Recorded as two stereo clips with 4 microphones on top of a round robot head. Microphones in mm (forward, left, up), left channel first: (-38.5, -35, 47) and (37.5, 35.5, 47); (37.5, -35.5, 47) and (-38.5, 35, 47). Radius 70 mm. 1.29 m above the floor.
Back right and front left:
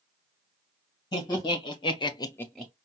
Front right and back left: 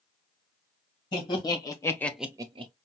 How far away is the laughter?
About 2.0 m.